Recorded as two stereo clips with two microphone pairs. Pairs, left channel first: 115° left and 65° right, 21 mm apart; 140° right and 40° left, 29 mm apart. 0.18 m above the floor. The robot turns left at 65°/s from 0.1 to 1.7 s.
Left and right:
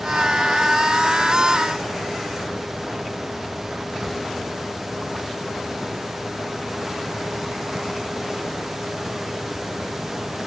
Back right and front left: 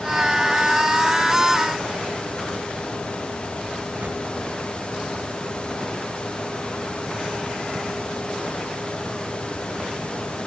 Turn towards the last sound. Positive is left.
turn(degrees=10)